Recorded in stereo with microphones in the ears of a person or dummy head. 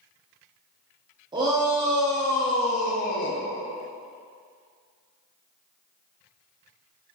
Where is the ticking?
No ticking in this recording.